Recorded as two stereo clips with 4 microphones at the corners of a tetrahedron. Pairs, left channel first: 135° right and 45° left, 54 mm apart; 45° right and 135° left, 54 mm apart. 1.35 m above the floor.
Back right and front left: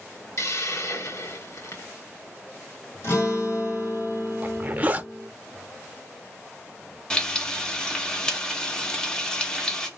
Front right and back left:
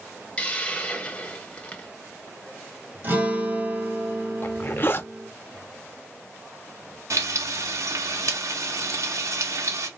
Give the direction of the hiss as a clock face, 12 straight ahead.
4 o'clock.